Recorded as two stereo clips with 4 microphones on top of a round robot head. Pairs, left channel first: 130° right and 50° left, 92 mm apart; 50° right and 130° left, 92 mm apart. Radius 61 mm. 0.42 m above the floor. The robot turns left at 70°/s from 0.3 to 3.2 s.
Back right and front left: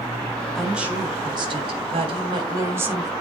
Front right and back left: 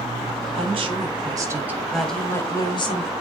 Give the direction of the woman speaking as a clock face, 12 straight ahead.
7 o'clock.